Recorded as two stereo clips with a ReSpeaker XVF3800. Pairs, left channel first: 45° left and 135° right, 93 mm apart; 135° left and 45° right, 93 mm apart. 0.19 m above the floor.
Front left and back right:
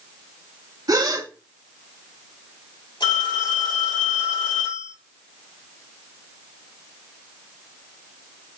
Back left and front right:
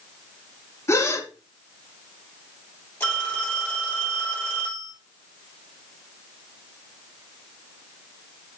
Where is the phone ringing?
70° left, 3 m.